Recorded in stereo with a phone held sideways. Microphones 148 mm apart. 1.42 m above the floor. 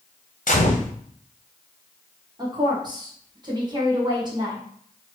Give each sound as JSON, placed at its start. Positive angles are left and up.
{"t": 0.5, "sound": "a gunshot", "side_deg": 65, "distance_m": 0.8}
{"t": 2.4, "sound": "a woman speaking", "side_deg": -30, "distance_m": 1.1}